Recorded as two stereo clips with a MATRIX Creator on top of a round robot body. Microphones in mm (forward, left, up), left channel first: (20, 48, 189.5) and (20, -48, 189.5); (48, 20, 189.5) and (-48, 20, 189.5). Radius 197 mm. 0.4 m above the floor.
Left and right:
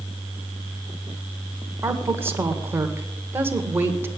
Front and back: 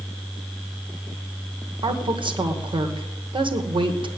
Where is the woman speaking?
155° right, 2 m.